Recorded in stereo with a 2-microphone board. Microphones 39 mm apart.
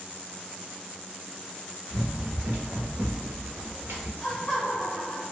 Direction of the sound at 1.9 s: 45° right (ahead or behind).